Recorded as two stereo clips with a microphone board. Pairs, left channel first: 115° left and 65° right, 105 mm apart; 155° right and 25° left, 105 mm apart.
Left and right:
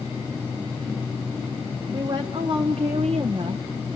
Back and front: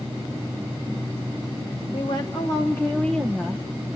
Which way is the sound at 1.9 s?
115° right.